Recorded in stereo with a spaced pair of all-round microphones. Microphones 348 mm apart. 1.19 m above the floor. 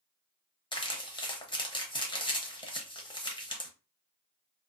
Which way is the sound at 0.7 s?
15° left (ahead or behind).